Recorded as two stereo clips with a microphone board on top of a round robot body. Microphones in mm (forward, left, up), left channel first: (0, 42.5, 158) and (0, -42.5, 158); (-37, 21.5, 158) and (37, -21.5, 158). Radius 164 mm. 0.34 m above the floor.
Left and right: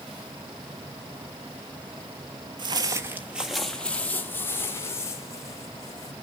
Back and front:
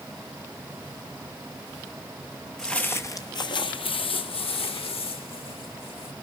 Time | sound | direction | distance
2.6 | footsteps | 125° right | 0.7 m